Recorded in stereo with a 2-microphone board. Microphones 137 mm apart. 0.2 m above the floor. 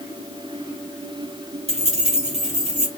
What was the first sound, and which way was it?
Keys jangling, 50° right (ahead or behind).